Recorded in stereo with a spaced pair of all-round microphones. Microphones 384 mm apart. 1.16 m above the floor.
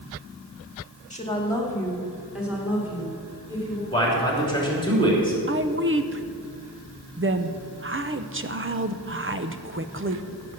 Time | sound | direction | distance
1.1 | a woman speaking | 20° left (ahead or behind) | 1.6 m
3.9 | a man speaking | 10° left (ahead or behind) | 3 m
5.5 | a woman speaking | 30° right (ahead or behind) | 0.6 m